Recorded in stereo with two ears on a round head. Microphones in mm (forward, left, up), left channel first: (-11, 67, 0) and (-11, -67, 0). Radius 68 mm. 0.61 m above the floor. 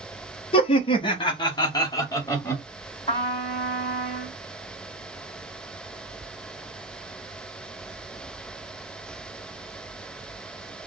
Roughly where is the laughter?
Left.